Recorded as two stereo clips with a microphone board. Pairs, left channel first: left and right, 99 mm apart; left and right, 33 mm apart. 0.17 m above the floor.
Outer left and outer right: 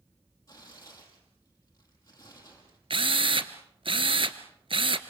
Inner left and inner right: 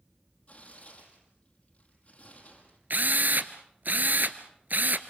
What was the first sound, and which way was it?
Tearing paper, 35° left (ahead or behind).